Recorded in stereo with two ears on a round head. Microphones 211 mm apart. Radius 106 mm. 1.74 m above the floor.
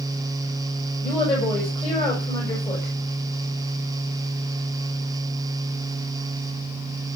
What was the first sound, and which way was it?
A woman speaking, 20° left (ahead or behind).